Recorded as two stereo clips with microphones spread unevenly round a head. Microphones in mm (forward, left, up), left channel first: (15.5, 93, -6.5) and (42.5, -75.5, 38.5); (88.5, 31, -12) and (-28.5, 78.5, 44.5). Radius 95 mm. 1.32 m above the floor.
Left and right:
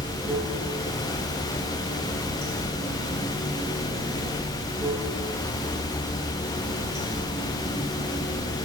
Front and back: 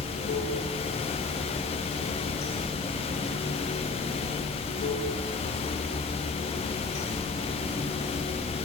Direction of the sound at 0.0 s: 20° right.